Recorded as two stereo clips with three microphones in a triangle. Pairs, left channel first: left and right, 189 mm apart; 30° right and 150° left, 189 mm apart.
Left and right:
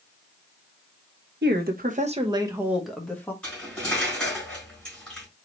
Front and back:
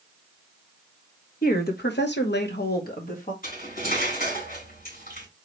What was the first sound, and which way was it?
A woman speaking, 70° right.